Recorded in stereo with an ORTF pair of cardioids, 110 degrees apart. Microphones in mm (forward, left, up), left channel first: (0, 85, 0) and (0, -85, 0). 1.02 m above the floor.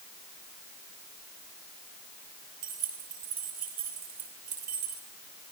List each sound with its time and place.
2.6 s keys jangling: 65° right, 6 m